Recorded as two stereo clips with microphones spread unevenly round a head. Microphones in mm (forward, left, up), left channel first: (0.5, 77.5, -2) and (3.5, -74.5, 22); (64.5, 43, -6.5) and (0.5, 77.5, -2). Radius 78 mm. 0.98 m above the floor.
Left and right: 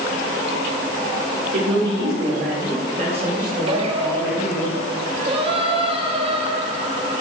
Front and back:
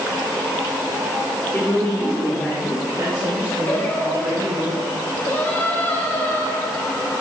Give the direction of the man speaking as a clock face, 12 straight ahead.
3 o'clock.